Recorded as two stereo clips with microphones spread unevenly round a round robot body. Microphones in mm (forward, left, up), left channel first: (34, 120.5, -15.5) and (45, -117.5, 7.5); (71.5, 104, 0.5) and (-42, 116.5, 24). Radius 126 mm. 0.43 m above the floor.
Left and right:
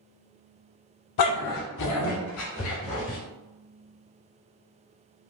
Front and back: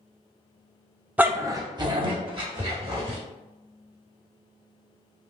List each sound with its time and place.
1.2 s a dog barking: 95° left, 0.5 m; by 3.2 s 140° left, 1.5 m